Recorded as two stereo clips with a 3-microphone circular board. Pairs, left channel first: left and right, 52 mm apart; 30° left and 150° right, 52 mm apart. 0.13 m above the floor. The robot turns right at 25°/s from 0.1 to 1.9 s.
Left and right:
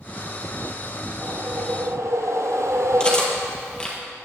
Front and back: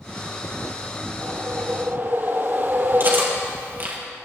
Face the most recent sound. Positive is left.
turn(degrees=165)